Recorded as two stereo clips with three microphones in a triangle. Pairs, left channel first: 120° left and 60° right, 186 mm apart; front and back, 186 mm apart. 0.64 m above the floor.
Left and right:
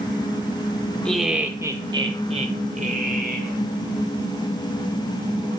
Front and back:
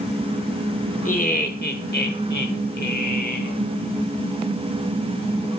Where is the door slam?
I don't hear a door slam.